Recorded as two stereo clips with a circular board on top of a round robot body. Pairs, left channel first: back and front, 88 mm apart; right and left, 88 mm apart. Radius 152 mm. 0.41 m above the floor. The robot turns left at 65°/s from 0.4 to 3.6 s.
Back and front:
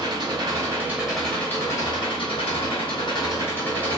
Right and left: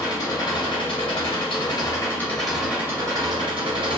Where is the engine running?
40° right, 1.4 m; by 4.0 s 110° left, 1.4 m.